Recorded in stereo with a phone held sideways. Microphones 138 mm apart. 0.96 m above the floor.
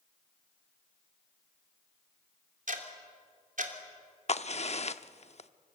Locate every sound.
2.7 s ticking: 70° right (ahead or behind), 3 m
4.3 s a crack: 50° left (ahead or behind), 0.7 m